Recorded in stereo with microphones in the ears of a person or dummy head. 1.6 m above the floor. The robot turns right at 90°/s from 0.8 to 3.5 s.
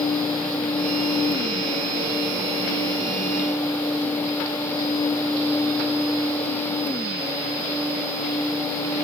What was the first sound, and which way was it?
Only background noise.